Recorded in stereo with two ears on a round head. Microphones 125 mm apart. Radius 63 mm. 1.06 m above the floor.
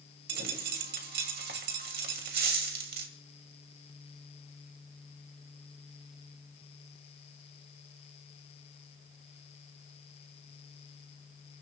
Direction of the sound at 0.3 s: 75° right (ahead or behind).